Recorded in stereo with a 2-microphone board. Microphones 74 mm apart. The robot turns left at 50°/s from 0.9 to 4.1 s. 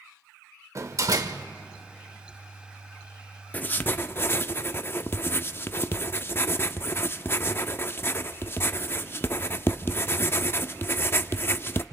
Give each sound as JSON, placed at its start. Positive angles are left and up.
{"t": 0.8, "sound": "a door slam", "side_deg": -50, "distance_m": 1.0}
{"t": 3.5, "sound": "writing", "side_deg": 25, "distance_m": 0.5}